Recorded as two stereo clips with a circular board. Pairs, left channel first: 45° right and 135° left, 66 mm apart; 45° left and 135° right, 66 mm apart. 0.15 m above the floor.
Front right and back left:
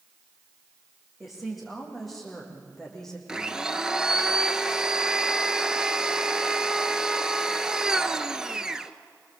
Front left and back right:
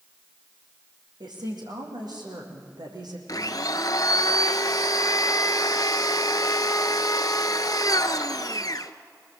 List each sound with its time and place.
1.2 s a woman speaking: 140° right, 7 m; by 3.2 s 130° right, 5.5 m
3.3 s a blender: 55° left, 0.9 m